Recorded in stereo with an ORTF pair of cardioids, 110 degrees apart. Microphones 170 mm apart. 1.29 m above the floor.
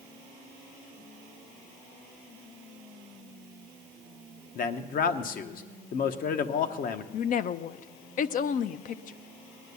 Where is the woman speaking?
50° left, 0.7 m.